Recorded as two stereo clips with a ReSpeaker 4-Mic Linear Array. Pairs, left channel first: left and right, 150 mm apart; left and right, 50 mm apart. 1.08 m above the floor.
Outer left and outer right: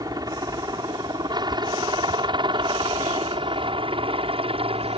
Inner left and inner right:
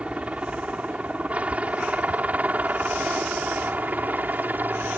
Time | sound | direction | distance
0.0 | a helicopter | 25° right (ahead or behind) | ?